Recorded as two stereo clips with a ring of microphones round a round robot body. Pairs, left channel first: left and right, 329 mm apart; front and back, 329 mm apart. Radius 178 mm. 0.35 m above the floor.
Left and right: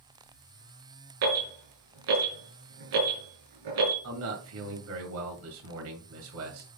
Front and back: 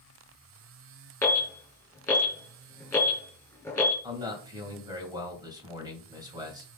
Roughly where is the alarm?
Right.